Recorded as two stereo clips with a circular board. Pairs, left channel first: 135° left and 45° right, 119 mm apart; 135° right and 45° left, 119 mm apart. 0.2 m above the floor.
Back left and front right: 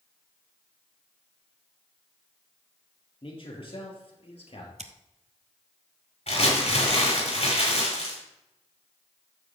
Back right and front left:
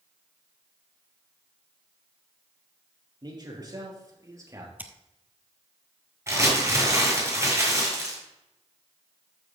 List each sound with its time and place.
3.2 s a man speaking: 95° left, 4 m; by 4.7 s 110° left, 3 m
4.8 s scissors: 30° right, 0.9 m
6.3 s crumpling: 110° left, 6 m